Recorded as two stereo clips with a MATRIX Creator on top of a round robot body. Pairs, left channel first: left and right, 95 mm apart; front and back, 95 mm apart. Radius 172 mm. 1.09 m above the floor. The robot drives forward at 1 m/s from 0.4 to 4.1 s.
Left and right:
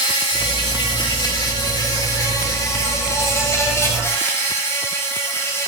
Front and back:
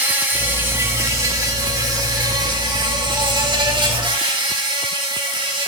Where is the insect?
110° left, 3 m; by 5.7 s 150° left, 5.5 m.